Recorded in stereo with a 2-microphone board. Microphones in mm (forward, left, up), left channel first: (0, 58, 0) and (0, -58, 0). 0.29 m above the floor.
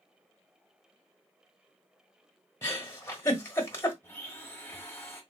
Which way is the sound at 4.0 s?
20° left (ahead or behind).